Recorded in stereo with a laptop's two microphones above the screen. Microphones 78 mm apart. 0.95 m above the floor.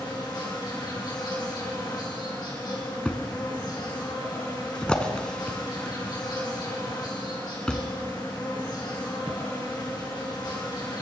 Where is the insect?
70° left (ahead or behind), 4.5 m.